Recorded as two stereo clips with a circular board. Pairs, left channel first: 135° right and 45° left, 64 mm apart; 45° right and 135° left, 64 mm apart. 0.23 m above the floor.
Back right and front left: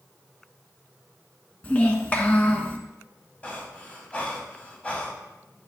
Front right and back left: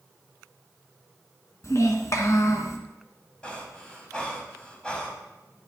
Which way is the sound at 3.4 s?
95° right.